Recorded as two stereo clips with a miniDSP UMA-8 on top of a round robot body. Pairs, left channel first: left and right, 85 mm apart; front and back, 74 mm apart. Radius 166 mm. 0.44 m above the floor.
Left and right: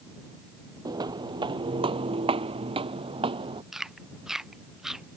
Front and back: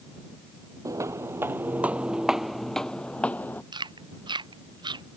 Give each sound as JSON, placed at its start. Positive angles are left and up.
{"t": 0.8, "sound": "footsteps", "azimuth_deg": -135}
{"t": 3.7, "sound": "chewing", "azimuth_deg": -175}